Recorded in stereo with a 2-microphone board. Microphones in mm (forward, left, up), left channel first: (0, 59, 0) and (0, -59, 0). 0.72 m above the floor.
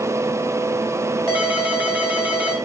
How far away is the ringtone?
About 1.9 m.